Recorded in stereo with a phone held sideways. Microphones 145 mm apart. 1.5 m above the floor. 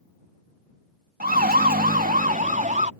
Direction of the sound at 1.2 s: 85° right.